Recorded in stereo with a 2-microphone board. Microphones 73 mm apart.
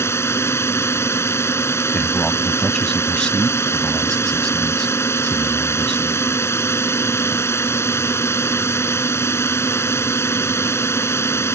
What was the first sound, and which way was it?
A drone, 35° left (ahead or behind).